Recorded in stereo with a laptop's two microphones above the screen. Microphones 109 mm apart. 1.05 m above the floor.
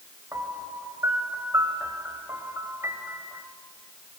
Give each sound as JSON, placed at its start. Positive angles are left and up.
{"t": 0.3, "sound": "a piano", "side_deg": -25, "distance_m": 2.5}